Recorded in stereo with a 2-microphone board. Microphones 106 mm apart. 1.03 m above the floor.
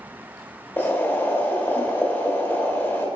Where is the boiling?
20° left (ahead or behind), 0.7 m.